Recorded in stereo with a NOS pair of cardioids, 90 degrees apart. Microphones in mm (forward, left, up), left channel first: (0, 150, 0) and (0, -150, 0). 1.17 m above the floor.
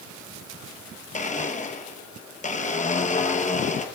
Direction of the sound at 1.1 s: 25° left.